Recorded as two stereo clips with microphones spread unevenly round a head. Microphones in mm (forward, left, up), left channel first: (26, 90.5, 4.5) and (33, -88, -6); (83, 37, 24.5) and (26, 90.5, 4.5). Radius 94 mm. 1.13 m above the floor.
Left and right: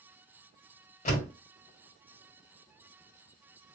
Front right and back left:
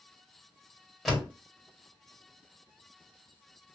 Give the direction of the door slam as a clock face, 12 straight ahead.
11 o'clock.